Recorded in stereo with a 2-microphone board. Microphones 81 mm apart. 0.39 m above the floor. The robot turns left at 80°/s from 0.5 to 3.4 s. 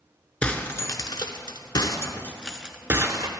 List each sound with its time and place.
0.4 s breaking glass: 15° left (ahead or behind), 0.6 m; by 3.3 s 55° right (ahead or behind), 0.6 m